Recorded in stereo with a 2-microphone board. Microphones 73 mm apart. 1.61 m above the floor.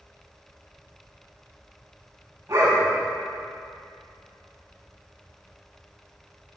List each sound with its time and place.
2.5 s a dog barking: 35° right (ahead or behind), 5.5 m